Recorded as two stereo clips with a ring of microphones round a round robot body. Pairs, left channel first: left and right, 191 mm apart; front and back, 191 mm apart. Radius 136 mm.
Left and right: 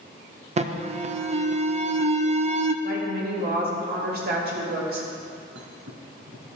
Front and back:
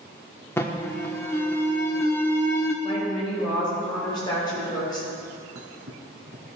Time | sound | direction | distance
0.6 | an alarm | 70° right | 0.5 m
2.8 | a woman speaking | 70° right | 2.5 m
5.5 | a thud | 140° right | 1.3 m